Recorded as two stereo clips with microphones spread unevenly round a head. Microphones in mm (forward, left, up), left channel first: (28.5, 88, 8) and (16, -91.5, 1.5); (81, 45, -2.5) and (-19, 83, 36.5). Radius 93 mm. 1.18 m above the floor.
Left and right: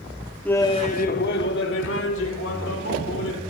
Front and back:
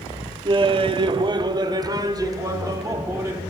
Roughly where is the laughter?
Behind.